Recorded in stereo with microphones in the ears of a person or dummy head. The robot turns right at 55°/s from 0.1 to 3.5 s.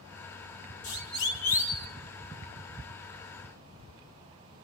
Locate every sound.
0.8 s a siren: 80° left, 2.5 m; by 1.9 s 15° left (ahead or behind), 1.4 m